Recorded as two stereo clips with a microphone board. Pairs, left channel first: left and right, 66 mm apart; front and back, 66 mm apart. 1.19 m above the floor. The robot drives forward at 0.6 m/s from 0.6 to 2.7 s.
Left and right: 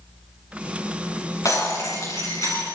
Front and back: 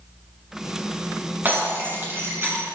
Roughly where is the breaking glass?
Behind left.